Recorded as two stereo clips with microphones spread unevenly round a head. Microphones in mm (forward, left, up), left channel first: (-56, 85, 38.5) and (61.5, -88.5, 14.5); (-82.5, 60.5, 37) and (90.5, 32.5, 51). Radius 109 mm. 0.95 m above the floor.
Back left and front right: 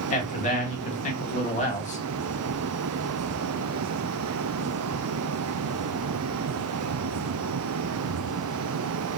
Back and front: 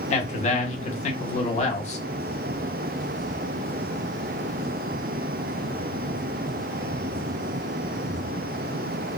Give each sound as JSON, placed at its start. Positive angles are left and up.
{"t": 0.1, "sound": "a man speaking", "azimuth_deg": 170, "distance_m": 0.8}